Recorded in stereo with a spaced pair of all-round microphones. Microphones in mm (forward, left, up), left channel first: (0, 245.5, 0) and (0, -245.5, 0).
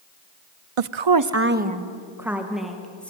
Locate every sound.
0.8 s a woman speaking: 85° right, 0.6 m; by 3.1 s 5° left (ahead or behind), 3 m